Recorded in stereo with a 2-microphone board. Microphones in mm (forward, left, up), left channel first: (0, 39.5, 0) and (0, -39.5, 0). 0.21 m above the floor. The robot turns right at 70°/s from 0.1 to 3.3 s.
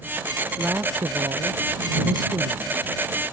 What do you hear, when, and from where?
0.6 s a woman speaking: 165° right; by 2.8 s 5° right